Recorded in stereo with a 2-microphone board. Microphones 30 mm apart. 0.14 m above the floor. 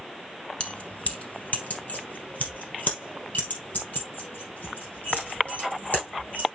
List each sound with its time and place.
0.6 s keys jangling: 40° left (ahead or behind), 1.2 m; by 6.4 s 55° left (ahead or behind), 5.5 m